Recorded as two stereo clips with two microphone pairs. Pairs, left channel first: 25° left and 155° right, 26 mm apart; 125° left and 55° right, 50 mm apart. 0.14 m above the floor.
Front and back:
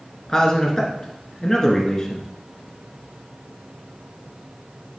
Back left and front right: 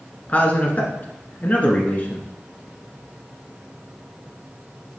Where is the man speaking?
85° left, 1.7 m.